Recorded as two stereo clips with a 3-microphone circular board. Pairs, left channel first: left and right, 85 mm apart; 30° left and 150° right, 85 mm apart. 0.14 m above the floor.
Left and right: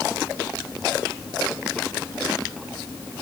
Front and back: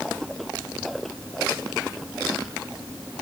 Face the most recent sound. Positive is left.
No sound to turn to.